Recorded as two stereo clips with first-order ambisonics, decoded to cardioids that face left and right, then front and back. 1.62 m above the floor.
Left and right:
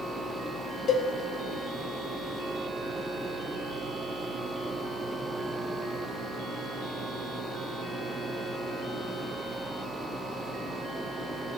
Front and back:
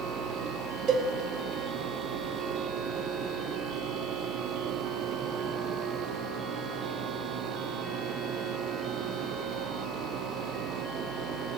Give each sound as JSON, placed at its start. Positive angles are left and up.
{"t": 0.9, "sound": "a cowbell", "azimuth_deg": 140, "distance_m": 1.5}